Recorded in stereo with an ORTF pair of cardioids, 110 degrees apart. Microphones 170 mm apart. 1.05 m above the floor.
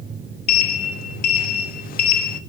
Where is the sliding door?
60° left, 1.0 m.